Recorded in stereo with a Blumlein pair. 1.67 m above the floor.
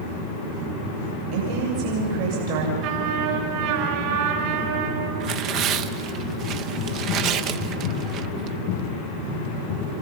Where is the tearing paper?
35° right, 0.9 m.